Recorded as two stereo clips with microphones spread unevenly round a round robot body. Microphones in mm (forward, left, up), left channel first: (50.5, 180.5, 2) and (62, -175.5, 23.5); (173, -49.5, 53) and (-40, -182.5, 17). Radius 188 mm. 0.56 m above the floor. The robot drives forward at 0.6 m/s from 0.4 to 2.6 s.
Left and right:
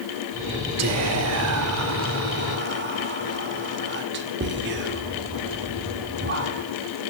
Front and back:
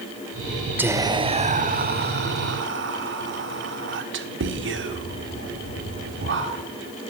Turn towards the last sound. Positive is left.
turn(degrees=-145)